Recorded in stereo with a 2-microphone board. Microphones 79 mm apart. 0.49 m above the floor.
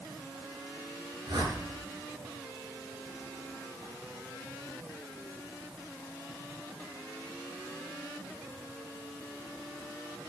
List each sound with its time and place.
1.3 s a whoosh: 70° right (ahead or behind), 5.5 m